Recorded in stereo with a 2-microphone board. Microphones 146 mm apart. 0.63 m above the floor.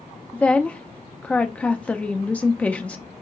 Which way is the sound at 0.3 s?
10° left (ahead or behind).